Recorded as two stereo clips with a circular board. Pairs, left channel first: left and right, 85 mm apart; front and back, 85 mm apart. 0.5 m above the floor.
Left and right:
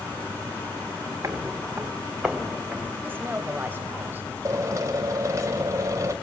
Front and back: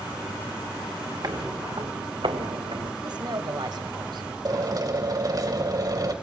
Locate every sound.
1.2 s footsteps: 140° right, 2.5 m; by 2.9 s 175° left, 4 m
3.0 s a woman speaking: 155° right, 3 m
4.5 s a drill: 140° right, 2.5 m